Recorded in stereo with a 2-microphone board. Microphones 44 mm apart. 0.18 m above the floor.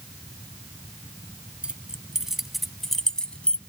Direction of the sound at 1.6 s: 25° right (ahead or behind).